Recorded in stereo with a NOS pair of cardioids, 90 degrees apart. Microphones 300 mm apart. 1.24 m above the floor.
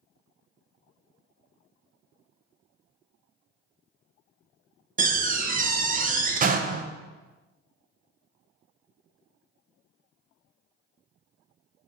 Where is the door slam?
30° right, 0.5 m.